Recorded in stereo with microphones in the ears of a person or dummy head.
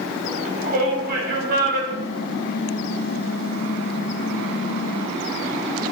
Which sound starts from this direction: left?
Typing on a keyboard, at 1.9 s.